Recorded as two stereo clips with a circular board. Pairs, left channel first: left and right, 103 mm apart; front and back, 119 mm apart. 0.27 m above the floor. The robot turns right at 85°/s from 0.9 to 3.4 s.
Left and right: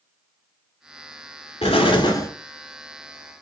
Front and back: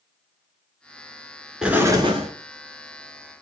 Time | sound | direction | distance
1.6 | an explosion | 95° left | 1.0 m